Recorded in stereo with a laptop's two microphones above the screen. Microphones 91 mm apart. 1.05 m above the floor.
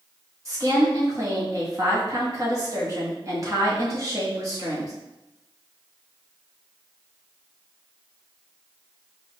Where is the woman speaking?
35° right (ahead or behind), 1.7 m.